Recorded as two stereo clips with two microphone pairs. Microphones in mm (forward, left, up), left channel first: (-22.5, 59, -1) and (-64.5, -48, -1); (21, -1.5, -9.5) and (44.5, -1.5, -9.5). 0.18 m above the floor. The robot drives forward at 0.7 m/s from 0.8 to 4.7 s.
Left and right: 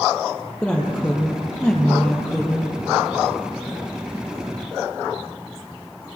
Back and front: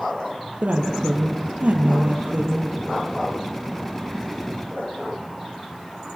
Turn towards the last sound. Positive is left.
turn(degrees=-25)